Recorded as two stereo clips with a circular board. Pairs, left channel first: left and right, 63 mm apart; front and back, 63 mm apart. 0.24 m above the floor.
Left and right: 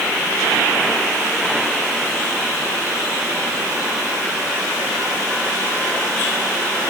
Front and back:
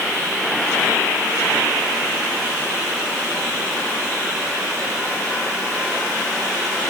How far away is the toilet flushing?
I don't hear a toilet flushing.